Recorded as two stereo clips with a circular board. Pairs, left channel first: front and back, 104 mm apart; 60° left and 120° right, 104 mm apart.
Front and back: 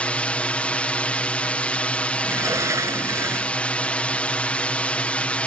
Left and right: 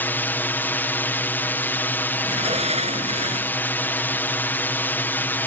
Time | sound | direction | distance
0.0 | a drone | 50° left | ?
2.2 | a sliding door | 120° right | ?